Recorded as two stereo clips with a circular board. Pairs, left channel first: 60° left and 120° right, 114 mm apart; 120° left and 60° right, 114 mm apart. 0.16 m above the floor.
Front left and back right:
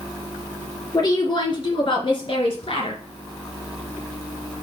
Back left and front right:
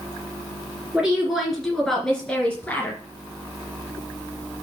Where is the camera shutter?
I don't hear a camera shutter.